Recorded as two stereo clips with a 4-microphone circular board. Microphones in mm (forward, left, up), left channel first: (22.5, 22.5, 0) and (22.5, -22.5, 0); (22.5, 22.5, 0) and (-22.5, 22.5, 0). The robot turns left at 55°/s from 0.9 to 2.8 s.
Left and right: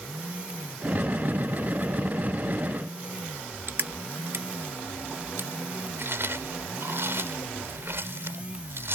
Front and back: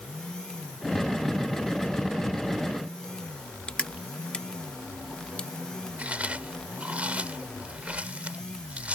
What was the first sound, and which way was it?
Crushing, 60° right.